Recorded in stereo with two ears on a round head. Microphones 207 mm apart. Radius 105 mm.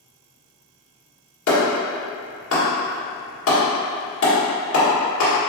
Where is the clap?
60° left (ahead or behind), 1.8 m.